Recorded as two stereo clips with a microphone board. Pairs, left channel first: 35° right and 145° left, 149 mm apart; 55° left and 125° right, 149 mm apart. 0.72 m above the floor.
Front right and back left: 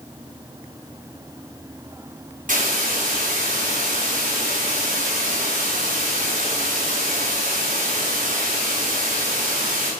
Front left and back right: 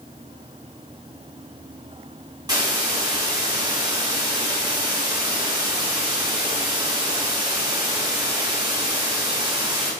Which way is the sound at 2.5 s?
170° left.